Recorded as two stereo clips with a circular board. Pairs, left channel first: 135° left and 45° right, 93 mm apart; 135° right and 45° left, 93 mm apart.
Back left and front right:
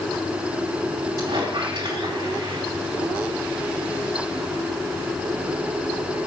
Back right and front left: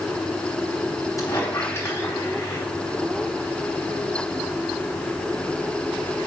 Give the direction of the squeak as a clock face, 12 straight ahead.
2 o'clock.